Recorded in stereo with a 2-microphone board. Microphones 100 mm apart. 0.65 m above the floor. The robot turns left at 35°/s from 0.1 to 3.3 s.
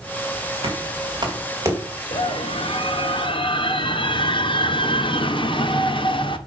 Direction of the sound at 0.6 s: 65° right (ahead or behind).